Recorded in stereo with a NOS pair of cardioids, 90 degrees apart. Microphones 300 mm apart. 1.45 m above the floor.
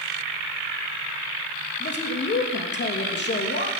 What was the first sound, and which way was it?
A man speaking, 35° left.